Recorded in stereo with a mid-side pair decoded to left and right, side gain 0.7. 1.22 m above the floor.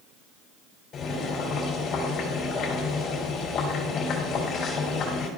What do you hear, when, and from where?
0.9 s boiling: 45° left, 3.5 m